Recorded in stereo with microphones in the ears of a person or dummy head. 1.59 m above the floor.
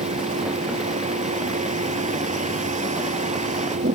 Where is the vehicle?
45° right (ahead or behind).